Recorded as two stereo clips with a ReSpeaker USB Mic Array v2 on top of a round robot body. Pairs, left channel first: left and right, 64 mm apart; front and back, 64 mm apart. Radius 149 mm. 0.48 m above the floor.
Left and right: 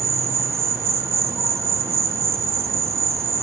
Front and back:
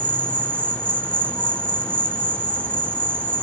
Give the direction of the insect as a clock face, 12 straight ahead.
2 o'clock.